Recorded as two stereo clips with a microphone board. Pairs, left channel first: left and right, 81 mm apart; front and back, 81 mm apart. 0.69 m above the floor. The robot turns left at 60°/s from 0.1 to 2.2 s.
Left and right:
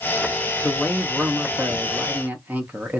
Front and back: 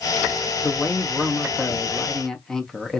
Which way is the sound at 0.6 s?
25° left.